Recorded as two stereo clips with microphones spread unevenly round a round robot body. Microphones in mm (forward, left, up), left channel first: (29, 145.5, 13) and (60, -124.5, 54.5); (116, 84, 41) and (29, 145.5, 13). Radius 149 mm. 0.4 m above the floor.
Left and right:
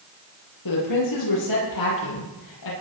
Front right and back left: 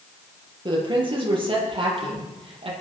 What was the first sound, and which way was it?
A woman speaking, 105° left.